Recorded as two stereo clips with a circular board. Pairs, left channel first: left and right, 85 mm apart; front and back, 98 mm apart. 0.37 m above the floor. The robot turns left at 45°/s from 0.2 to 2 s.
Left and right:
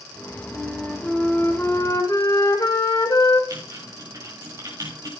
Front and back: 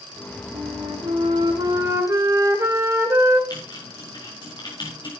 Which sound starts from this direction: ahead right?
Typing on a keyboard, at 3.5 s.